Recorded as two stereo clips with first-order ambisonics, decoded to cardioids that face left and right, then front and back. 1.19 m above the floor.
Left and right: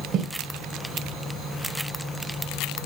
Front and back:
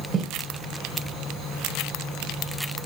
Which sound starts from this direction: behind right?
Footsteps, at 0.1 s.